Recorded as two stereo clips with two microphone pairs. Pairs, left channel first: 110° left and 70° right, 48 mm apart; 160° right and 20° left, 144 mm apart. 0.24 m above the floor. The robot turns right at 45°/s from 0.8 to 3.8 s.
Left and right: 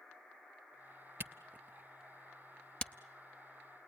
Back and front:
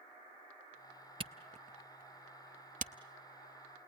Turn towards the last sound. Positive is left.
turn(degrees=85)